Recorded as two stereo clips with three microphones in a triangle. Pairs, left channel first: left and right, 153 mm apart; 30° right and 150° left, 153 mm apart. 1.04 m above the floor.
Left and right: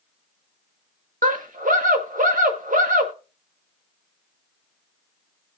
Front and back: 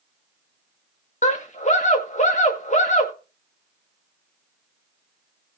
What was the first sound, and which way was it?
A scream, 65° right.